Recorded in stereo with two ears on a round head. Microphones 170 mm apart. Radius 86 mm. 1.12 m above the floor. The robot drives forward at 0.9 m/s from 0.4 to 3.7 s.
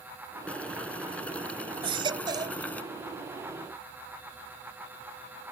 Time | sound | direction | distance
0.5 | boiling | 5° left (ahead or behind) | ?
1.8 | a baby crying | 30° right (ahead or behind) | ?